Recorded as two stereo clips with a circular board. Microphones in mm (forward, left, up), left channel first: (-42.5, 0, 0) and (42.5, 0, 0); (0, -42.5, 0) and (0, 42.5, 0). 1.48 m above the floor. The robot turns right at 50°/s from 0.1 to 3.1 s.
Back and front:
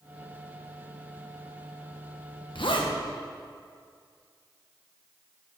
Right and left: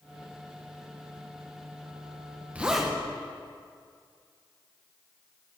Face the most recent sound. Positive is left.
turn(degrees=-170)